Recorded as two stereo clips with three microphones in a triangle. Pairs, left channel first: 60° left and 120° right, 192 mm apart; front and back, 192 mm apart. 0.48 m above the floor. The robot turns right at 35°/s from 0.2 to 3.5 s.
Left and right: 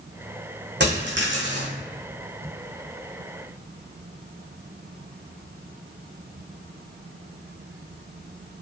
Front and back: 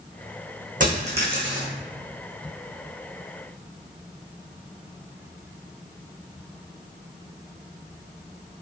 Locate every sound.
0.8 s a dropped coin: 140° right, 1.5 m; by 1.7 s 110° right, 1.5 m